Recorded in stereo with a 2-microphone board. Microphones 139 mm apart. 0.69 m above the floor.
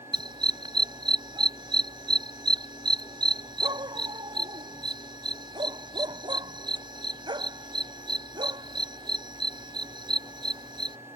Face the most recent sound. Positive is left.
turn(degrees=-35)  # may be behind; listen again after turning